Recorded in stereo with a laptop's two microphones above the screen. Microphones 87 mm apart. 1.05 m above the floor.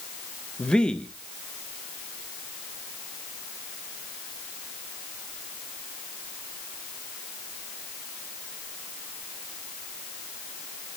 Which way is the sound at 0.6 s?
10° left (ahead or behind).